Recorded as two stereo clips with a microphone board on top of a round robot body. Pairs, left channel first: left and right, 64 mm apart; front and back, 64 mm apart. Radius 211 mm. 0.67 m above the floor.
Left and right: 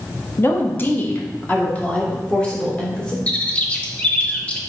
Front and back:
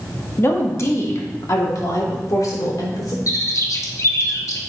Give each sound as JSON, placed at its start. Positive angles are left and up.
{"t": 0.4, "sound": "a woman speaking", "azimuth_deg": 45, "distance_m": 1.7}
{"t": 3.3, "sound": "a bird", "azimuth_deg": 25, "distance_m": 1.4}